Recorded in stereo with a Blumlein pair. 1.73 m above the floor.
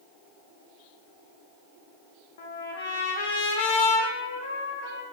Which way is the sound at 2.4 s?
55° left.